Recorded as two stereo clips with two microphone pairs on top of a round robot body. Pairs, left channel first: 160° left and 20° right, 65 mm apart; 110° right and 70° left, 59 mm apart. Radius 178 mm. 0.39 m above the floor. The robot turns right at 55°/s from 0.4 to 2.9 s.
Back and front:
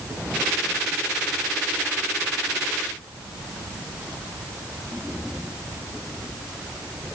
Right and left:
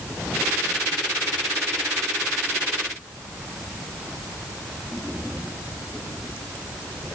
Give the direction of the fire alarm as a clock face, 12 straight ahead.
I don't hear a fire alarm.